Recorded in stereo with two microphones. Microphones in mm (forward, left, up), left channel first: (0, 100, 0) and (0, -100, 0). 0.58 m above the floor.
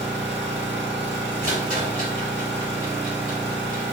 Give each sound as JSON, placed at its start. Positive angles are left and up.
{"t": 0.0, "sound": "an engine running", "side_deg": -65, "distance_m": 0.9}
{"t": 1.4, "sound": "a rattle", "side_deg": -35, "distance_m": 1.4}